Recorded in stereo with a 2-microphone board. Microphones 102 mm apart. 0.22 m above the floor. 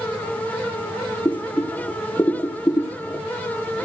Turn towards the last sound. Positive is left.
turn(degrees=25)  # may be behind; listen again after turning